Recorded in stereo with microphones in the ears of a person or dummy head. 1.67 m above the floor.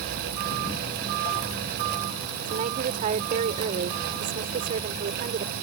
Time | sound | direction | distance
2.5 | a woman speaking | 40° right (ahead or behind) | ?